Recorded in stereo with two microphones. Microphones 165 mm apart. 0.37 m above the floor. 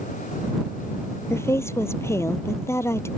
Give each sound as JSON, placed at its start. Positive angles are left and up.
{"t": 1.3, "sound": "a woman speaking", "side_deg": 15}